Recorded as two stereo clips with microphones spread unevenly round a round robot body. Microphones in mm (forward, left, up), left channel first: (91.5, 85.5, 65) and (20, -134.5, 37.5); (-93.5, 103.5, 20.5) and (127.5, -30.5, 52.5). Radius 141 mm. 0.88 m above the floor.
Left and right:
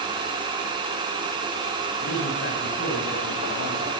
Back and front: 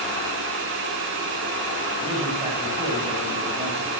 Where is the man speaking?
35° left, 7.5 m.